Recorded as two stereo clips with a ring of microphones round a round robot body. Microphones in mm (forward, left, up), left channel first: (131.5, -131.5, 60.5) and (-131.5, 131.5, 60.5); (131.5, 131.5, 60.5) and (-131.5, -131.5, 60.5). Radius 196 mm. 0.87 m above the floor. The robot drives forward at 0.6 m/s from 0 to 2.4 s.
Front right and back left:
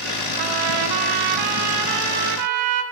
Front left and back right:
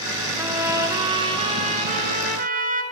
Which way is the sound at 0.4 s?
140° left.